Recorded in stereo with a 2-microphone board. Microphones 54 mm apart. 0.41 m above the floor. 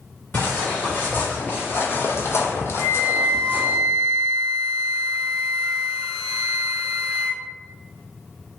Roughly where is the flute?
Left.